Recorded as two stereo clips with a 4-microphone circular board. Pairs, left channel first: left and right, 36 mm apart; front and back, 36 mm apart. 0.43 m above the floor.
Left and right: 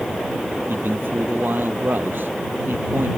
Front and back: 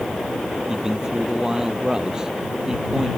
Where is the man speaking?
110° right.